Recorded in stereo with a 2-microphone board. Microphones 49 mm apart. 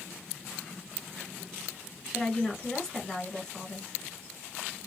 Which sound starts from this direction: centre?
A woman speaking, at 2.1 s.